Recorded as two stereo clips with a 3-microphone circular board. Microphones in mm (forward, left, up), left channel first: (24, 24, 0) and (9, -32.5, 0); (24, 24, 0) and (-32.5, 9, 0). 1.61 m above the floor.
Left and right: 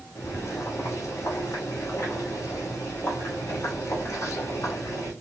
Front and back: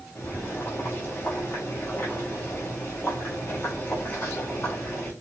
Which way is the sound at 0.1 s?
60° left.